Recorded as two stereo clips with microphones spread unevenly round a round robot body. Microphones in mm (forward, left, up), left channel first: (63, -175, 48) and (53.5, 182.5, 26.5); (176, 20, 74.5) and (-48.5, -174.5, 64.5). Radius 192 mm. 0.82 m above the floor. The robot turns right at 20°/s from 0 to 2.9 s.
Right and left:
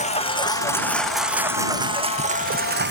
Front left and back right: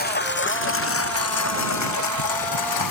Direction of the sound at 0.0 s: 20° right.